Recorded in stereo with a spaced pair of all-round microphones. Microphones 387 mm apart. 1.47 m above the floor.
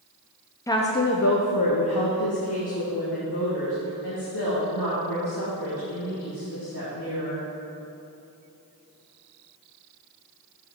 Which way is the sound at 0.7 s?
10° left (ahead or behind).